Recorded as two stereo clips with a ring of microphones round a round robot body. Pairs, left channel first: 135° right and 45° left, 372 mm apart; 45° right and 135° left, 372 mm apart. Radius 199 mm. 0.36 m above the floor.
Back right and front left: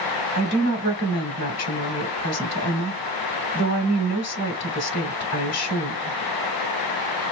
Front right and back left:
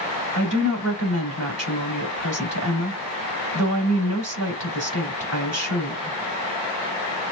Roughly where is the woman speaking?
Behind.